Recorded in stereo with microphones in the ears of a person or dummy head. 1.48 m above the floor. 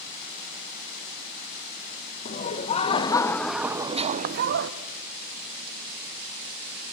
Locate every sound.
2.2 s laughter: 40° left (ahead or behind), 1.6 m; by 4.7 s 65° right (ahead or behind), 1.1 m